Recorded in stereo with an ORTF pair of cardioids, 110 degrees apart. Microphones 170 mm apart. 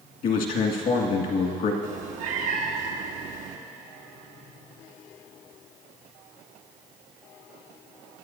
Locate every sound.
0.2 s a man speaking: 65° left, 1.8 m
1.8 s a cat meowing: 60° right, 1.3 m